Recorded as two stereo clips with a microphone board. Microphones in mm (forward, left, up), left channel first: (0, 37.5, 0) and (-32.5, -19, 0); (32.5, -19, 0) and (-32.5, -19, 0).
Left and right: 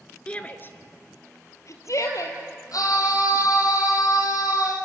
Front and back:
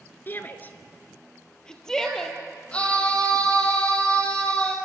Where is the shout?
Straight ahead, 1.4 m; by 2.4 s 80° left, 3 m.